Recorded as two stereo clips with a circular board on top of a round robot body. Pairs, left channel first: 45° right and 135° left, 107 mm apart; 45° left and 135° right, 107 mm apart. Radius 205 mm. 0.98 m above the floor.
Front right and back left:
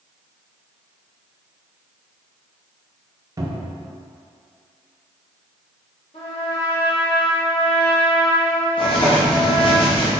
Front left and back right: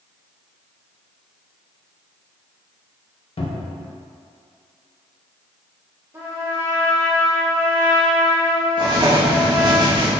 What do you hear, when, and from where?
3.4 s a cupboard door: 75° left, 0.9 m
6.1 s a trumpet: 70° right, 1.5 m
8.8 s writing: 85° right, 1.0 m